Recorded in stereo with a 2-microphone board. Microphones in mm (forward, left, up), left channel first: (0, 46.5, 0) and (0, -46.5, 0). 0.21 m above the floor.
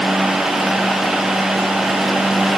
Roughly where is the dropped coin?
I don't hear a dropped coin.